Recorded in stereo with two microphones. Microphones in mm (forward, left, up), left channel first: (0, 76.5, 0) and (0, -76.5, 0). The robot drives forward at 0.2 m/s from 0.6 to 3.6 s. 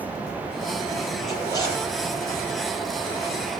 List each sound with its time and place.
1.3 s a zipper: 20° left (ahead or behind), 6 m